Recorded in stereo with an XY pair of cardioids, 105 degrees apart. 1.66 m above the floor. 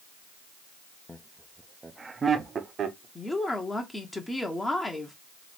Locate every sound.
1.1 s laughter: 15° left, 0.7 m; by 3.0 s 50° right, 1.1 m
3.1 s a woman speaking: 15° left, 1.0 m